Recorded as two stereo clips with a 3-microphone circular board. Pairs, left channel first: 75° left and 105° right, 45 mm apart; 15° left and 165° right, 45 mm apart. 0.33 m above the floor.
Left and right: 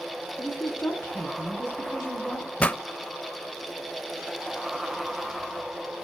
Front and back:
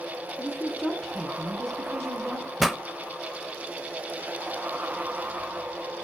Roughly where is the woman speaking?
Left.